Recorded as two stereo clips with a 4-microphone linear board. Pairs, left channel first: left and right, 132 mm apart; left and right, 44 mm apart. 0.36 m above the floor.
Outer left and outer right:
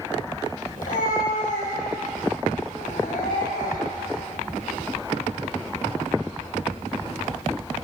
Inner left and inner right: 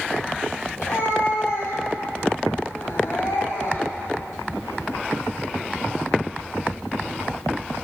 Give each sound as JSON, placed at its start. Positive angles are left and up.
{"t": 0.8, "sound": "a cat meowing", "side_deg": 80, "distance_m": 9.0}